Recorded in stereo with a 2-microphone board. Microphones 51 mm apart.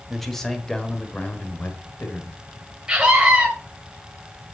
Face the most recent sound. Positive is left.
turn(degrees=-15)  # may be behind; listen again after turning